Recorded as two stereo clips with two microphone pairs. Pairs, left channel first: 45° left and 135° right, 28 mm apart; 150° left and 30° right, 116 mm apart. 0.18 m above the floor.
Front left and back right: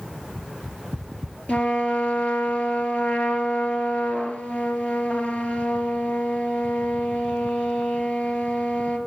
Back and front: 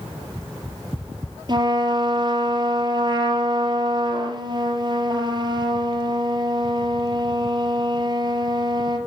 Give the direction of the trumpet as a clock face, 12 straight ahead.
11 o'clock.